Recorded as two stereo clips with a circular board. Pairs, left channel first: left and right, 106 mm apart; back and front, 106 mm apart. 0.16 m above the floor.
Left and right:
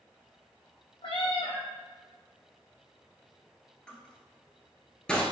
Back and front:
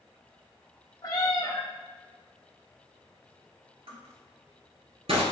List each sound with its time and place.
1.0 s a cat meowing: 125° left, 0.7 m
3.9 s crushing: 10° left, 0.8 m